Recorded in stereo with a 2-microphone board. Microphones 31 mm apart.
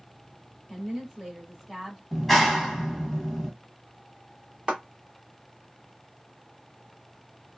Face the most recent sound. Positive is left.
turn(degrees=-30)  # may be behind; listen again after turning